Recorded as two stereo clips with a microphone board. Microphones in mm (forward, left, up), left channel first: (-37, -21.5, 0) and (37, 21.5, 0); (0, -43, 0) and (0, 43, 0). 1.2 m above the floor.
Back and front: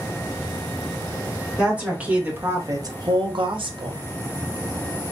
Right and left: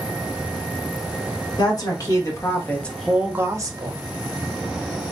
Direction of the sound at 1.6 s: 50° right.